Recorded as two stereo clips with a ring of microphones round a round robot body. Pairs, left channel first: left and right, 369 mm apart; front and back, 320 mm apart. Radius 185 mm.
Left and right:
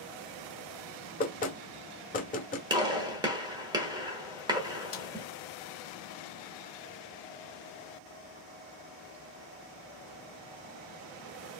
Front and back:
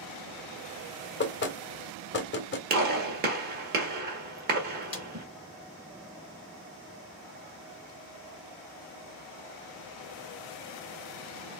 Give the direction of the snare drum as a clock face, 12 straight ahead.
10 o'clock.